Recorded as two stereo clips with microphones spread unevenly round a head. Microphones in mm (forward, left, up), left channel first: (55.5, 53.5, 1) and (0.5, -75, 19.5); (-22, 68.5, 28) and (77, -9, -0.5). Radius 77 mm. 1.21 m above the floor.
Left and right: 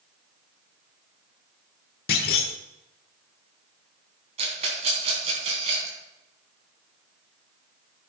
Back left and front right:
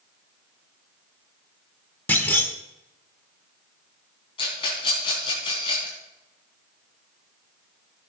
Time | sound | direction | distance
2.1 | a clunk | 80° left | 1.2 m
4.4 | a rattle | 165° right | 3.5 m